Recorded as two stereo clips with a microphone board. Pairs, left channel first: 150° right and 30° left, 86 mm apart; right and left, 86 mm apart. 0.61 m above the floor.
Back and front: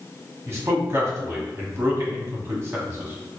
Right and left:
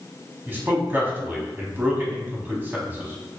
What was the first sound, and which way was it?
A man speaking, 50° left.